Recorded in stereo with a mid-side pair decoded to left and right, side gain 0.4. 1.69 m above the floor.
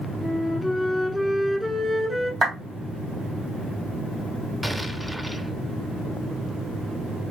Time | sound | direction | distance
0.2 | a flute | 10° right | 1.6 m
2.4 | a clap | 65° right | 2.5 m
4.6 | an explosion | 10° right | 0.8 m